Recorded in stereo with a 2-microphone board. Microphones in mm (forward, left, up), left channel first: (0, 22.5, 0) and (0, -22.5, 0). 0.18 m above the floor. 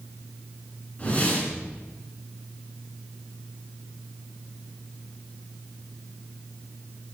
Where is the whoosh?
35° left (ahead or behind), 2.5 m.